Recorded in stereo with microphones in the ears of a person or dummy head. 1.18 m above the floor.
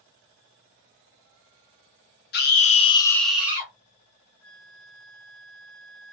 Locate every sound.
2.3 s a scream: 45° left (ahead or behind), 0.9 m; by 3.7 s 20° right (ahead or behind), 1.0 m
4.4 s a flute: 70° left (ahead or behind), 0.6 m